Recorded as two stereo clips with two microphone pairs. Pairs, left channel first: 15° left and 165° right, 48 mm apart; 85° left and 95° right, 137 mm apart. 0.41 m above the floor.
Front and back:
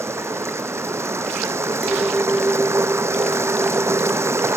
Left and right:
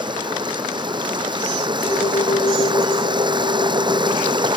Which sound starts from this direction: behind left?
A clink, at 1.8 s.